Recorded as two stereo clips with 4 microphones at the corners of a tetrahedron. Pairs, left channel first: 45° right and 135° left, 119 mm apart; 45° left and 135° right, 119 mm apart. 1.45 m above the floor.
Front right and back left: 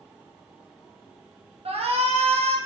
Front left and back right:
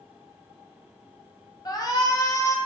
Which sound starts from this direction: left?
A shout, at 1.6 s.